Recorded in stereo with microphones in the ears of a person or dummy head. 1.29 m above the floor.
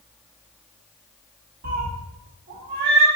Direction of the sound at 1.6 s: 45° right (ahead or behind).